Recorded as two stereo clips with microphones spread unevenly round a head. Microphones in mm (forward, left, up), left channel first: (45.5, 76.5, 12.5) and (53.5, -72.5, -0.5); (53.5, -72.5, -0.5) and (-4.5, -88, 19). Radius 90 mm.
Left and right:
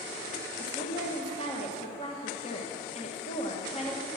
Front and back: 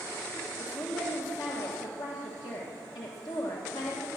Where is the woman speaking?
45° left, 1.3 m.